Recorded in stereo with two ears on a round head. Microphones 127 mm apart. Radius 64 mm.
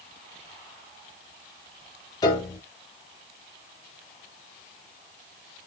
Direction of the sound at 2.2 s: 25° left (ahead or behind).